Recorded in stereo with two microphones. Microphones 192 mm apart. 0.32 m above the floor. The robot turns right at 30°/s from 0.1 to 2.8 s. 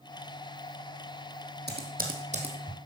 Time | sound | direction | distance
1.7 | typing on a keyboard | 55° right (ahead or behind) | 2.5 m